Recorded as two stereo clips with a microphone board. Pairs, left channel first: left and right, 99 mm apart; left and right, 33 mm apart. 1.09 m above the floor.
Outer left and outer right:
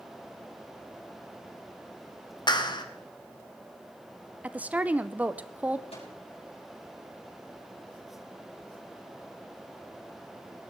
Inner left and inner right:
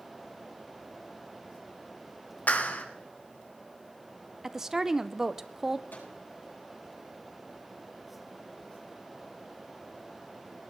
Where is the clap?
45° left (ahead or behind), 1.3 m.